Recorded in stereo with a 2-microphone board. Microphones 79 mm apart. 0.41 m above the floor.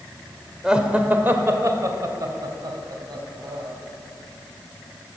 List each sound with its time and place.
0.6 s laughter: 10° right (ahead or behind), 1.4 m; by 3.7 s 65° right (ahead or behind), 3 m